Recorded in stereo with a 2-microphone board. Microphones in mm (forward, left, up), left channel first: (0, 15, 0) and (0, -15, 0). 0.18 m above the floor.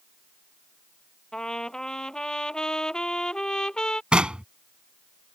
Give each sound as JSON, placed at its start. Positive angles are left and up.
{"t": 1.3, "sound": "a trumpet", "side_deg": 30}
{"t": 4.1, "sound": "knocking", "side_deg": -35}